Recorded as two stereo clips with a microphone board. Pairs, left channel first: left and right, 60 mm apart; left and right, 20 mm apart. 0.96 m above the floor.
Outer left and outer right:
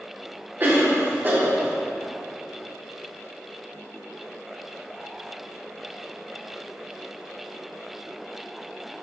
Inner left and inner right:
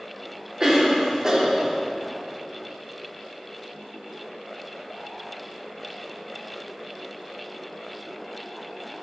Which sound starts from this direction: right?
A cough, at 0.6 s.